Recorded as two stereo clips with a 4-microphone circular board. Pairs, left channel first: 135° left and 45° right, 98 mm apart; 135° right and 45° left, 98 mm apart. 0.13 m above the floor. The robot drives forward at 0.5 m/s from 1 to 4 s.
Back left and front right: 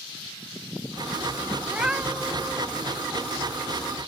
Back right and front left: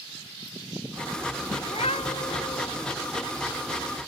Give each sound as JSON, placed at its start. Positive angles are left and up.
{"t": 1.6, "sound": "a cat meowing", "azimuth_deg": -125}